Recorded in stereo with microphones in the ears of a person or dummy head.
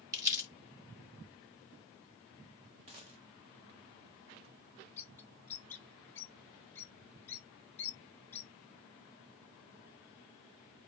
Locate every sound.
0.1 s crumpling: 20° right (ahead or behind), 1.7 m
2.9 s a dropped coin: 35° right (ahead or behind), 0.6 m
5.0 s a bird: 5° left (ahead or behind), 0.6 m